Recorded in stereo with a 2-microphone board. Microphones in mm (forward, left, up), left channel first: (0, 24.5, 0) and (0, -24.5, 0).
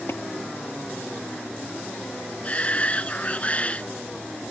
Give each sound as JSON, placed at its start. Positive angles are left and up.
{"t": 0.1, "sound": "tapping", "side_deg": 55}
{"t": 2.4, "sound": "a shout", "side_deg": 30}